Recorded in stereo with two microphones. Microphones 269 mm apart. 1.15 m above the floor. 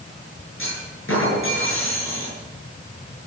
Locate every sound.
0.6 s a clunk: 50° left (ahead or behind), 8 m